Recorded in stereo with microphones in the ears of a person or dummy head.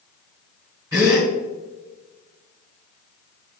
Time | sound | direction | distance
0.9 | a gasp | 15° right (ahead or behind) | 3 m